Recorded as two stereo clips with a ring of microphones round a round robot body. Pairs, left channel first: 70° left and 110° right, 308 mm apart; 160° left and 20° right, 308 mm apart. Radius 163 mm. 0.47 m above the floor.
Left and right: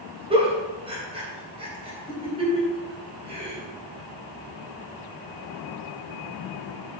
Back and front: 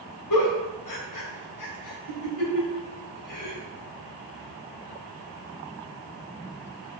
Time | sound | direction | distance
0.3 | a giggle | 175° left | 3.5 m